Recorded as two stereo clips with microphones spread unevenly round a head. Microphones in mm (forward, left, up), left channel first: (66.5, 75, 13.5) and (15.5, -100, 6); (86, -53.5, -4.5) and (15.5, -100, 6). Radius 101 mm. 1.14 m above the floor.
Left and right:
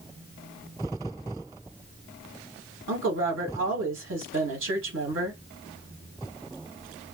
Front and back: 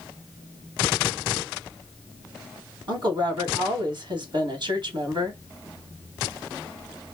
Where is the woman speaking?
120° right, 1.9 m.